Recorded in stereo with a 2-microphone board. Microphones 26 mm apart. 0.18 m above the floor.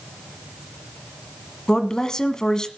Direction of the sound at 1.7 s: 25° left (ahead or behind).